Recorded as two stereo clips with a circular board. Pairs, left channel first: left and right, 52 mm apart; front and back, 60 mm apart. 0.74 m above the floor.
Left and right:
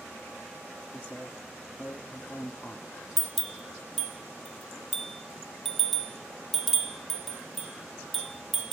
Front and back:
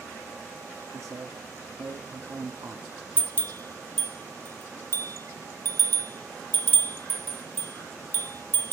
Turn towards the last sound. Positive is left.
turn(degrees=-5)